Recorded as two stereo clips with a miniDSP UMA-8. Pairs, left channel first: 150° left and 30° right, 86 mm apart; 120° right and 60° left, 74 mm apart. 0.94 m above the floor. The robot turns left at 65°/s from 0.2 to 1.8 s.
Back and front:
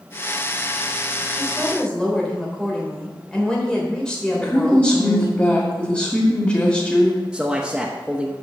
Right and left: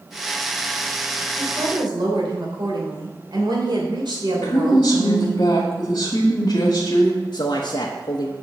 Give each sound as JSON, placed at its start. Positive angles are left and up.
{"t": 1.4, "sound": "a woman speaking", "azimuth_deg": 100, "distance_m": 3.0}
{"t": 4.3, "sound": "a woman speaking", "azimuth_deg": -140, "distance_m": 2.0}
{"t": 7.3, "sound": "a man speaking", "azimuth_deg": -110, "distance_m": 1.0}